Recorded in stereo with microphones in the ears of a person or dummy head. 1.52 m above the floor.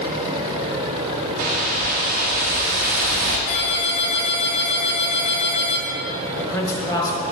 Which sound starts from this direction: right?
A whoosh, at 1.4 s.